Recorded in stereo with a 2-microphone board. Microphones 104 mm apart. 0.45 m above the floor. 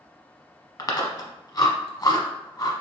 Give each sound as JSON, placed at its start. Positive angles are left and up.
{"t": 0.8, "sound": "chewing", "side_deg": 40, "distance_m": 0.9}